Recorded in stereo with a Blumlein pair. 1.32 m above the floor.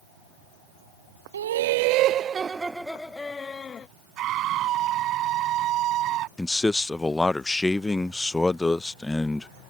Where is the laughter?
65° right; by 3.9 s 25° left.